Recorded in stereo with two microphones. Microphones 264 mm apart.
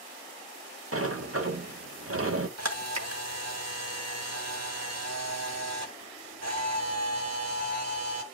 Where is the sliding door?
60° right (ahead or behind), 0.9 m.